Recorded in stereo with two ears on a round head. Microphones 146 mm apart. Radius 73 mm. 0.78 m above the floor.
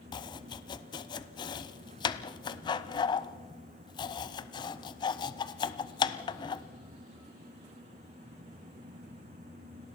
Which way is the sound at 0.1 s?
30° left (ahead or behind).